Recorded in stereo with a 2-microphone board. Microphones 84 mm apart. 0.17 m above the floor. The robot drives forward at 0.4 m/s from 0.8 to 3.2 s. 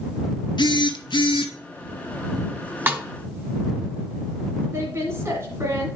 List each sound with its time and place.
0.6 s a phone buzzing: 65° left (ahead or behind), 0.8 m; by 1.5 s 75° left (ahead or behind), 0.7 m
2.9 s a snare drum: 25° right (ahead or behind), 0.8 m
4.7 s a woman speaking: 35° right (ahead or behind), 1.3 m